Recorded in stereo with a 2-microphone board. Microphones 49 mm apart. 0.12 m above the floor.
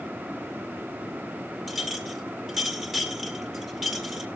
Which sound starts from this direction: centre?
A clink, at 1.7 s.